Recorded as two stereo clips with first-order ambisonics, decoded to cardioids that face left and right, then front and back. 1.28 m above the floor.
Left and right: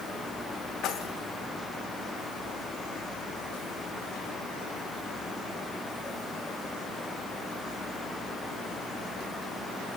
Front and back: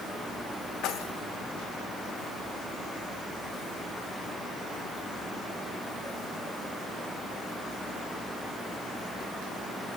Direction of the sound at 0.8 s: 40° left.